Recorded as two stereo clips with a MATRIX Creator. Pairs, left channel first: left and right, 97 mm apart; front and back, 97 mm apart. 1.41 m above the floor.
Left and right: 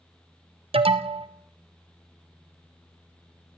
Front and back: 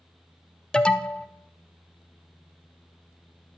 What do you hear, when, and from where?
0.7 s an alarm: 80° right, 0.6 m